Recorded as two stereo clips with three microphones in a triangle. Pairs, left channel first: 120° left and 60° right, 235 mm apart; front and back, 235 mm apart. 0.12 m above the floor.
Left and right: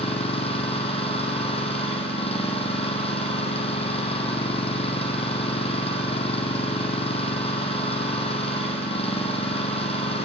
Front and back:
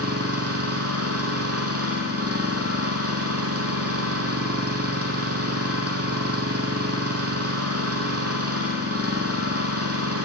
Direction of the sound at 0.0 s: 175° right.